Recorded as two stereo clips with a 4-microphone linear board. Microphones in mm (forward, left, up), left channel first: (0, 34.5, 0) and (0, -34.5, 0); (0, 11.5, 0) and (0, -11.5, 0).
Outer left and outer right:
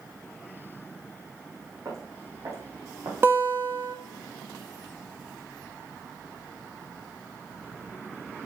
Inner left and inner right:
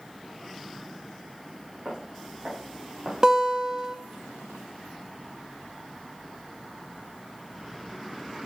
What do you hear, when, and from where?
1.9 s footsteps: 40° right (ahead or behind), 3.5 m; by 3.1 s 55° right (ahead or behind), 3 m
3.2 s a guitar: 35° right (ahead or behind), 1.0 m